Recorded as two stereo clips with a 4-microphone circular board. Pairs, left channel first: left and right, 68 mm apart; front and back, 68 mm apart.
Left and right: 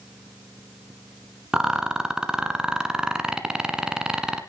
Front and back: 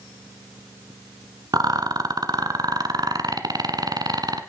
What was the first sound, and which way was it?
A rattle, 170° right.